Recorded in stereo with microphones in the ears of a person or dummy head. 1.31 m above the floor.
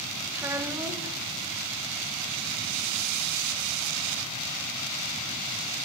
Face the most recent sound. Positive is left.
turn(degrees=-15)  # may be behind; listen again after turning